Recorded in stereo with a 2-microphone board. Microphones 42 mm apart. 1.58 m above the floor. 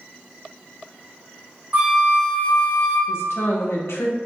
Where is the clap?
I don't hear a clap.